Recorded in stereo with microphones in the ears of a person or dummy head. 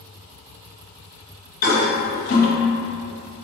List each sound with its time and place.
1.6 s a toilet flushing: 45° left (ahead or behind), 0.7 m